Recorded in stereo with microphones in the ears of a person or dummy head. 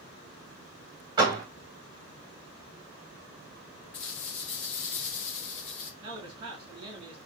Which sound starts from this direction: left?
A rattle, at 3.9 s.